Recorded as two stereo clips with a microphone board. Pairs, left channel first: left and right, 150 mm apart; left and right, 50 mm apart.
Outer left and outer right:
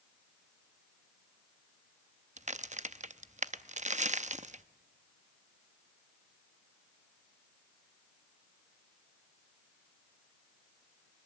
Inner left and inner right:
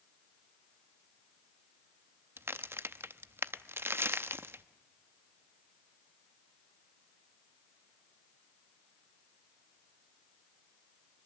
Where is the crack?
50° right (ahead or behind), 0.6 m.